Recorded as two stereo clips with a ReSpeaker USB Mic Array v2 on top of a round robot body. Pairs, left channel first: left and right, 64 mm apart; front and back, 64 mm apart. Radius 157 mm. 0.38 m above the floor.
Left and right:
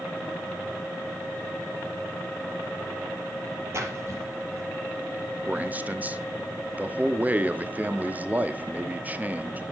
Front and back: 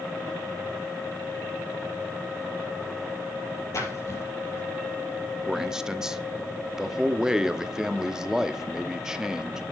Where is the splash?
45° right, 5 m.